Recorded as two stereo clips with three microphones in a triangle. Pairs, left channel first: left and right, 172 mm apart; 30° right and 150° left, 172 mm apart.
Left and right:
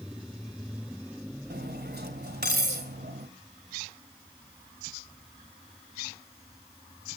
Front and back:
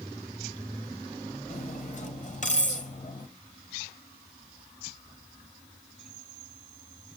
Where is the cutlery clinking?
75° right, 2 m.